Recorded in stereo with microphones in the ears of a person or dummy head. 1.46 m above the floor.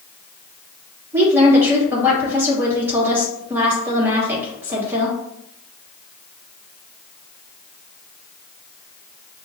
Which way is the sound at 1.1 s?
15° right (ahead or behind).